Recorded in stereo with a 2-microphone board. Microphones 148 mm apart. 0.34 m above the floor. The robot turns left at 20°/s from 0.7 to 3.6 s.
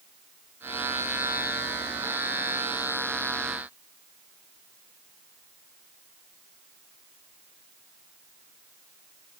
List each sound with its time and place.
Only background noise.